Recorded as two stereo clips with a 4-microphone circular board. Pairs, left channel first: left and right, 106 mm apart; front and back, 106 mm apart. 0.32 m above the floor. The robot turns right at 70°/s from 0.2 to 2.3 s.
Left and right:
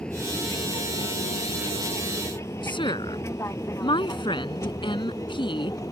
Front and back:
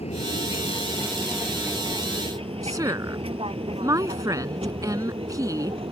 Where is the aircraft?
10° left; by 5.9 s 150° left.